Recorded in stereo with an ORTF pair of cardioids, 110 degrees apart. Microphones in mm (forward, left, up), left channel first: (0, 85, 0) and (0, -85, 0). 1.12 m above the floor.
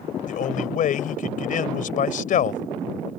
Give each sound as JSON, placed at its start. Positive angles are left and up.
{"t": 0.3, "sound": "a man speaking", "azimuth_deg": 55}